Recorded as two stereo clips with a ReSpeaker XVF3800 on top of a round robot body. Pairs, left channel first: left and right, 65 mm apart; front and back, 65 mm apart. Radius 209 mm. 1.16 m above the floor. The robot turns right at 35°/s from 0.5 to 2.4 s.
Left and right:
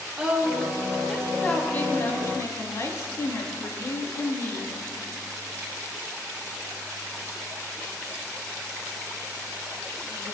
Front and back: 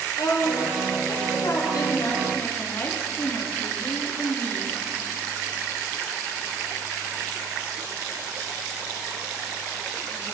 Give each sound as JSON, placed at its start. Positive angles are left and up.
{"t": 0.2, "sound": "a woman speaking", "azimuth_deg": -15, "distance_m": 3.5}